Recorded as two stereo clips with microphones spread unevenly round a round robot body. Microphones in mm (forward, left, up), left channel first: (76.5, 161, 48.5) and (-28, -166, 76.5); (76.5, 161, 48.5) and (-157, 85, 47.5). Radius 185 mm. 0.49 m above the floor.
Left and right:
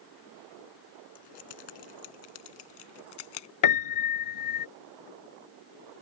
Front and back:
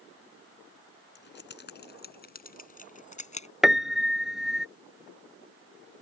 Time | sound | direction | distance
1.1 | keys jangling | 60° left | ?
3.6 | a piano | 110° left | ?